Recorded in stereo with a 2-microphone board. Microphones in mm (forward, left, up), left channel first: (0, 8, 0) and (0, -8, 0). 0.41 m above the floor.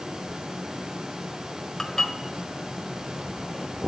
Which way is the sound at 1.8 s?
30° left (ahead or behind).